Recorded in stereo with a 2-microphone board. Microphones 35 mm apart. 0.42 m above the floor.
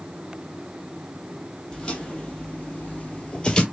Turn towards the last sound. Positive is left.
turn(degrees=25)  # may be behind; listen again after turning